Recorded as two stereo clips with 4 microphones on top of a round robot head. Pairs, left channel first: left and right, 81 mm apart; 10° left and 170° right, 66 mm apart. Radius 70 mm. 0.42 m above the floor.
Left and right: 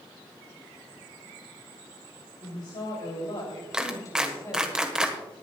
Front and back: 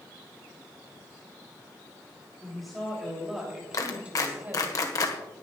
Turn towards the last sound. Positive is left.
turn(degrees=-10)